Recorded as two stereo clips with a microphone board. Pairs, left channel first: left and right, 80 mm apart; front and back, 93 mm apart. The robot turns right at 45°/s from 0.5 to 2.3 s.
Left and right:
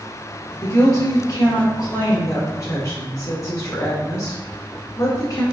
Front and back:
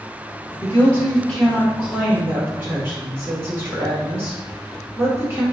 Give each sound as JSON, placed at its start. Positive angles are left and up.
{"t": 0.6, "sound": "a woman speaking", "azimuth_deg": 50, "distance_m": 1.7}